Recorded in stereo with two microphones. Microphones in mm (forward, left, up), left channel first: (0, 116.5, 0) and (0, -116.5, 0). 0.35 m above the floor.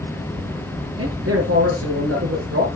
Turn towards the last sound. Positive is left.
turn(degrees=-75)  # may be behind; listen again after turning